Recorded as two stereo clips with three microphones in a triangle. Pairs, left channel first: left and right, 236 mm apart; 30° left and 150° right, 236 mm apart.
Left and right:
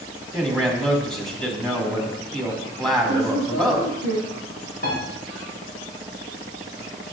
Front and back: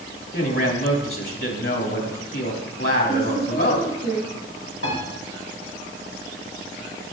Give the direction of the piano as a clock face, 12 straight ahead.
10 o'clock.